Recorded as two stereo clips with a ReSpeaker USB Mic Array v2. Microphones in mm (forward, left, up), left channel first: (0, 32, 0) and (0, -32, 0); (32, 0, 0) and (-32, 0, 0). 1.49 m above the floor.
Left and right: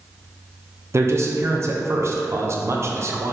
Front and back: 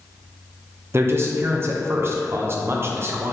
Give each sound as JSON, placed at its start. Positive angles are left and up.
{"t": 0.9, "sound": "a man speaking", "azimuth_deg": -130, "distance_m": 0.5}